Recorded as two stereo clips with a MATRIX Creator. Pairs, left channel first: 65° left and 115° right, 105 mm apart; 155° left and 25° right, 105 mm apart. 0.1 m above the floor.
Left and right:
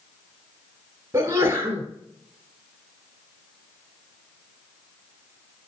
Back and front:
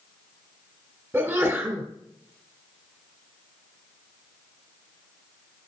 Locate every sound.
1.1 s a sneeze: 70° right, 1.4 m